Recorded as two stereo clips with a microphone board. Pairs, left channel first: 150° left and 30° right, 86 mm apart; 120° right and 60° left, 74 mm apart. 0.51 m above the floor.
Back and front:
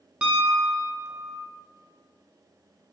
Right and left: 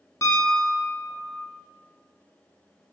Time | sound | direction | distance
0.2 | a piano | 100° right | 0.5 m